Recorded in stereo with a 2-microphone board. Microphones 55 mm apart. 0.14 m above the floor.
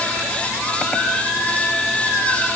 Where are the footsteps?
No footsteps in this recording.